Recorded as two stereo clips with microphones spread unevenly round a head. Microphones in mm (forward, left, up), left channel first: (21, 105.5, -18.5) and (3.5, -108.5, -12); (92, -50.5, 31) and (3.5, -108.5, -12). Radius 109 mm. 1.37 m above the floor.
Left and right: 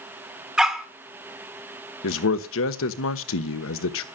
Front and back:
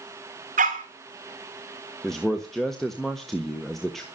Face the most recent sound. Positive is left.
turn(degrees=115)